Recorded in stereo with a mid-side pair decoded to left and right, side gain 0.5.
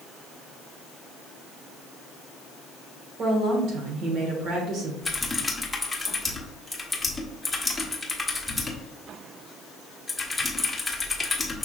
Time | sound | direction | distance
3.2 | a woman speaking | 65° right | 1.7 m
5.0 | typing on a keyboard | 10° left | 1.1 m